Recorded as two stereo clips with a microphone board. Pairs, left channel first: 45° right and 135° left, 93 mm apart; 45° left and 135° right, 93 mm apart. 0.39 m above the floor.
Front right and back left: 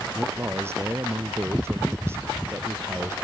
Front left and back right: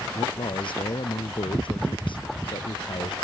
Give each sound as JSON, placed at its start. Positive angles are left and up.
{"t": 0.1, "sound": "a man speaking", "azimuth_deg": 70}